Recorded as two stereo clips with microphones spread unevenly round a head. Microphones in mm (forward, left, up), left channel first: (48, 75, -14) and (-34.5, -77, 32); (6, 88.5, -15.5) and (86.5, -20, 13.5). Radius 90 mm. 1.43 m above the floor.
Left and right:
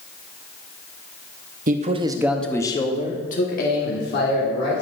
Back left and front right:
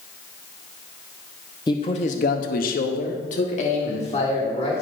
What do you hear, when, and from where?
1.7 s a man speaking: 170° right, 0.9 m; by 4.8 s 85° left, 2.5 m